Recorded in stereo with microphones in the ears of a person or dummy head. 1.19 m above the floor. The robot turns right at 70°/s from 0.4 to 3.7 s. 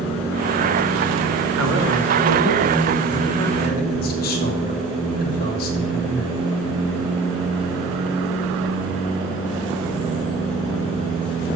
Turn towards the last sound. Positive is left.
turn(degrees=50)